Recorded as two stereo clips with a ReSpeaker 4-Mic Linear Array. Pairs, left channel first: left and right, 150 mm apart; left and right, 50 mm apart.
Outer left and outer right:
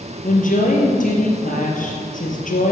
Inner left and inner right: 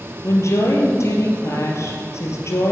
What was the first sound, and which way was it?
A woman speaking, 60° left (ahead or behind).